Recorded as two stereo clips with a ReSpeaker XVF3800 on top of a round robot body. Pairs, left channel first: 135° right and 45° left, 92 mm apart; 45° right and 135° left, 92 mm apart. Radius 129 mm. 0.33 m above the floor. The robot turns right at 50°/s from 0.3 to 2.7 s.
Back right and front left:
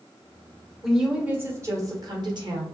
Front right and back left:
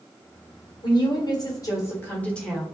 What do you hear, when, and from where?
0.8 s a woman speaking: 45° right, 1.8 m; by 2.6 s 45° left, 1.8 m